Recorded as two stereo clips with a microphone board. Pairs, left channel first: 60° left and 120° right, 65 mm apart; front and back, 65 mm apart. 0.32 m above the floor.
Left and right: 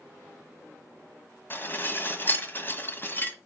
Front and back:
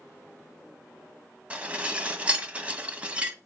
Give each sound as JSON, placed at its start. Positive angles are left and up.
{"t": 1.5, "sound": "dishes clattering", "azimuth_deg": 115, "distance_m": 1.4}